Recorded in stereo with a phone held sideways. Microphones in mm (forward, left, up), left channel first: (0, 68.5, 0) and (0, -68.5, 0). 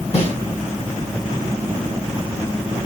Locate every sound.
0.1 s a snare drum: 50° left (ahead or behind), 1.6 m